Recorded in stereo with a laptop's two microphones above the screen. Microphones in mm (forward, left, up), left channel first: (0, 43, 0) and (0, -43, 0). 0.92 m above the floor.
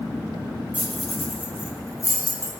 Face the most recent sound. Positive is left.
turn(degrees=45)  # may be behind; listen again after turning